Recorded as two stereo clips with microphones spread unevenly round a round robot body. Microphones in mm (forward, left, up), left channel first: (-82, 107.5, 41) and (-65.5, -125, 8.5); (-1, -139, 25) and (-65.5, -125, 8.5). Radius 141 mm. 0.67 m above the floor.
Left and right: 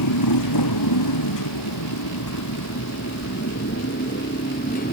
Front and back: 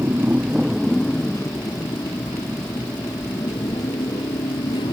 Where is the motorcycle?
85° left; by 4.9 s 30° left.